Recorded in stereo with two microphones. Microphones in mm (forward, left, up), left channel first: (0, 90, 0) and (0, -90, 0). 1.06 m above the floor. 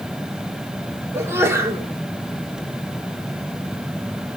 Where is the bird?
No bird in this recording.